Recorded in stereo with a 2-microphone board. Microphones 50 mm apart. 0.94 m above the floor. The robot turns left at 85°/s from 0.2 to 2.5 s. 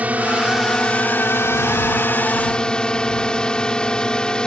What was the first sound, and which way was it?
A drone, 145° right.